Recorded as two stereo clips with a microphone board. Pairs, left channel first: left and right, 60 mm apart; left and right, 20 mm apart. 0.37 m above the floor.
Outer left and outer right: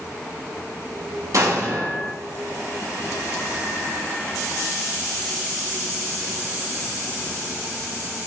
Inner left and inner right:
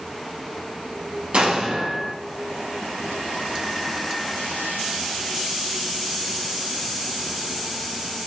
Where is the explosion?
65° right (ahead or behind), 2.5 m.